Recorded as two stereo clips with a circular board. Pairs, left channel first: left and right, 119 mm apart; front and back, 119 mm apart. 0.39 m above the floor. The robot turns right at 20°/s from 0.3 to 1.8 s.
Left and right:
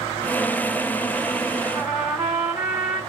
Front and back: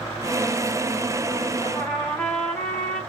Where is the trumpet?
55° right, 1.3 m; by 3.0 s 50° right, 1.3 m.